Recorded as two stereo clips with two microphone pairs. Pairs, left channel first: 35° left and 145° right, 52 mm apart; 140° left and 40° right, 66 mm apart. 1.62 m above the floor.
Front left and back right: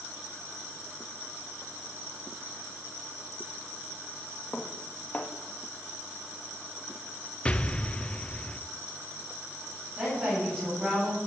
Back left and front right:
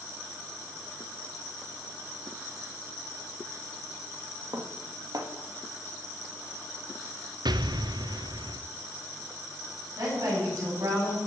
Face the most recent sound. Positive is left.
turn(degrees=-75)